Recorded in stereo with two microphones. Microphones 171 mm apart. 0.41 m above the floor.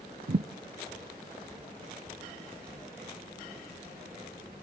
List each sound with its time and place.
0.3 s a thud: 55° right (ahead or behind), 0.5 m